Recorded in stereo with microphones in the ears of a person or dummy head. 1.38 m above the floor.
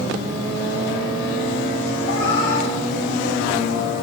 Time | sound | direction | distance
2.0 | a cat meowing | 65° left (ahead or behind) | 3 m